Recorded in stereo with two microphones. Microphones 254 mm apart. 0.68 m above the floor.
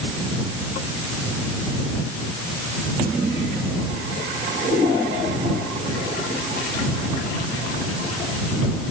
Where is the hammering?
I don't hear hammering.